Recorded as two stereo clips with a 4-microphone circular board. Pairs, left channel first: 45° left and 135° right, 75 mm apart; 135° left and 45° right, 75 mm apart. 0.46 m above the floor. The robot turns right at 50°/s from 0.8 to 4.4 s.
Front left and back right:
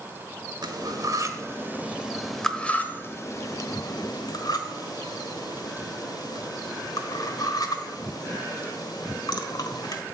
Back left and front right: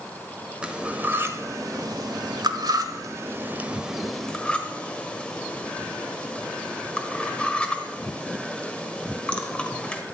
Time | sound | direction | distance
0.6 | cutlery clinking | 120° right | 1.2 m